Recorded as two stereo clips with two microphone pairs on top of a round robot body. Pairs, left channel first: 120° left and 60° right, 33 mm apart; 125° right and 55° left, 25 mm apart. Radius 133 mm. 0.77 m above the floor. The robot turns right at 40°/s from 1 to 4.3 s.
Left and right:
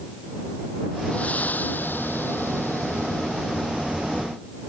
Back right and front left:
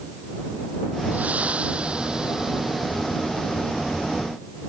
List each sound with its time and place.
1.1 s breathing: 70° left; by 3.7 s 175° left